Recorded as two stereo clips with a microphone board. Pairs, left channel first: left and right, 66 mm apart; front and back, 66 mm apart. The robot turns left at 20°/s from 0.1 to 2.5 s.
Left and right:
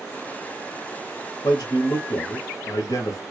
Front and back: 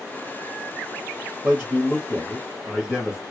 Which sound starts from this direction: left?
A man speaking, at 1.4 s.